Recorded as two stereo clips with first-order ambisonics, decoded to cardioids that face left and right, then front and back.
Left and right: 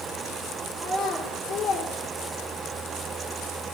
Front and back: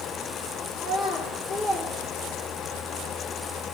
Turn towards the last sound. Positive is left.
turn(degrees=120)